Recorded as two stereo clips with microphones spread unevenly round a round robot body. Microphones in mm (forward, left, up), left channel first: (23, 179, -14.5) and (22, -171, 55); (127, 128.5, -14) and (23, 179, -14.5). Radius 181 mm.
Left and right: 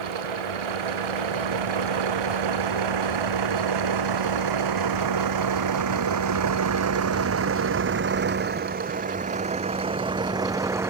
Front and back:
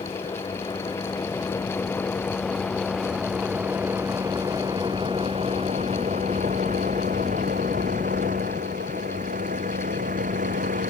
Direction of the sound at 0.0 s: 105° right.